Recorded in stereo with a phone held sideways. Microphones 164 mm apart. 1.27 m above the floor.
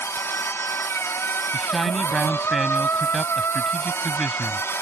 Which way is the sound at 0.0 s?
15° left (ahead or behind).